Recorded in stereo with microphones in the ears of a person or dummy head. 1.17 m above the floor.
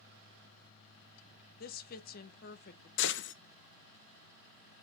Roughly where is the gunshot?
Left.